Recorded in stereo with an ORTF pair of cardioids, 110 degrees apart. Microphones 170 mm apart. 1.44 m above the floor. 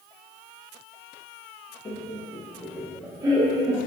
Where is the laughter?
30° left, 1.5 m; by 3.8 s 40° right, 1.5 m.